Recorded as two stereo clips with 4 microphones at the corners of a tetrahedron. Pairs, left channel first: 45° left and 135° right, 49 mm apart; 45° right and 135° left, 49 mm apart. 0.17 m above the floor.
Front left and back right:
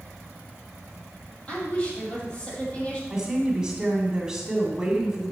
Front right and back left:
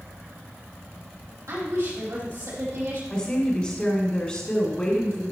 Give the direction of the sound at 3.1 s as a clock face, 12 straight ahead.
3 o'clock.